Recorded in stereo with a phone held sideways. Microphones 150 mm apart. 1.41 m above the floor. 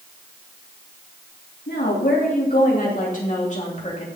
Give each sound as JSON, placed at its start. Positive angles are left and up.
{"t": 1.7, "sound": "a woman speaking", "side_deg": 75, "distance_m": 3.0}